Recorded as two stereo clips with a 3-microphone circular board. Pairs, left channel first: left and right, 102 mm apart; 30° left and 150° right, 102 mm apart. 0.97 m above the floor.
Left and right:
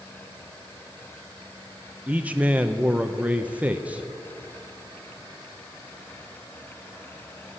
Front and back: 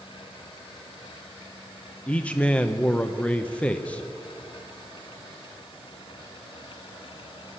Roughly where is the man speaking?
Ahead right.